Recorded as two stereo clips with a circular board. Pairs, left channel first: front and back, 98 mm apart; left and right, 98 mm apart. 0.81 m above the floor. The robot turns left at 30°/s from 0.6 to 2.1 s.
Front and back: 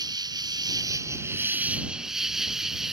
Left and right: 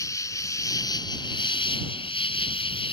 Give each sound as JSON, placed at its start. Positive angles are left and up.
{"t": 0.0, "sound": "an insect", "azimuth_deg": 140}